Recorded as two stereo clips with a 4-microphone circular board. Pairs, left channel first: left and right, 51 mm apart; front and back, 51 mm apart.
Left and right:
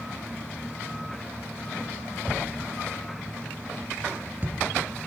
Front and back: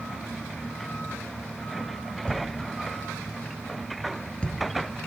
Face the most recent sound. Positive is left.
turn(degrees=-60)